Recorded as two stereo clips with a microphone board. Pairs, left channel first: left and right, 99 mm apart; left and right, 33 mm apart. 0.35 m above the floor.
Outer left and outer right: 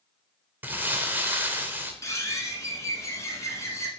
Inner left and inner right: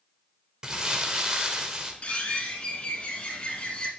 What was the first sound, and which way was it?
Crumpling, 20° right (ahead or behind).